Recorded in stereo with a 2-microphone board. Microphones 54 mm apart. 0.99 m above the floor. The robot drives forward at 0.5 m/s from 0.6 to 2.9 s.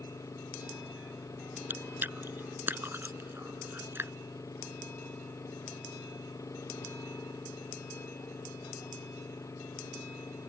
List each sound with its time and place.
0.0 s an engine running: 90° left; by 10.5 s 85° left
1.7 s chewing: 40° right (ahead or behind); by 4.1 s 45° right (ahead or behind)